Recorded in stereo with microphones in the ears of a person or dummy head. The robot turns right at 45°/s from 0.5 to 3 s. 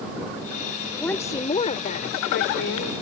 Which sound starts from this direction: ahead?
A woman speaking, at 0.9 s.